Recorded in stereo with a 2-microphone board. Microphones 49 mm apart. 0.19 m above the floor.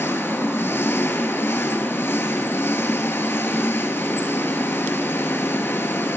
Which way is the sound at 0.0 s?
50° left (ahead or behind).